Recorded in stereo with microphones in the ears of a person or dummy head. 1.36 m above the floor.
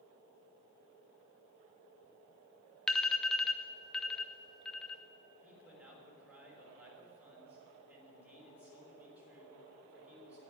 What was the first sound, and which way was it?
An alarm, 5° left (ahead or behind).